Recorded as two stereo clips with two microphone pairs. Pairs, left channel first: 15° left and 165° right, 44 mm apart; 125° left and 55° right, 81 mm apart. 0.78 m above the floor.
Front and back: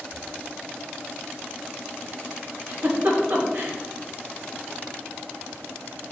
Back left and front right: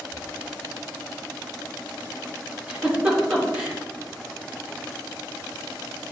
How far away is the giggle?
About 2.5 m.